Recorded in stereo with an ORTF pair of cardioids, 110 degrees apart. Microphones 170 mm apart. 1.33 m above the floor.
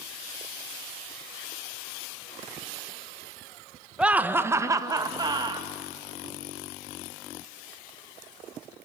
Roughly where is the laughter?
Ahead.